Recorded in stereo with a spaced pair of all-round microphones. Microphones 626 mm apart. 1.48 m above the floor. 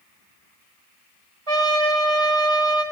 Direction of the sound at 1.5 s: 55° right (ahead or behind).